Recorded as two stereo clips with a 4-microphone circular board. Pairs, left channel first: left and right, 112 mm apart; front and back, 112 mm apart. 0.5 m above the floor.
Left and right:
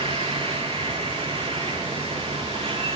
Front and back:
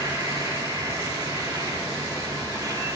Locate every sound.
0.0 s an insect: 120° right, 5.5 m